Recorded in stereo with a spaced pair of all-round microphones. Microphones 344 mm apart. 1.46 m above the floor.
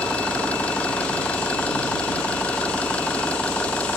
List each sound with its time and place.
0.0 s an engine running: 5° left (ahead or behind)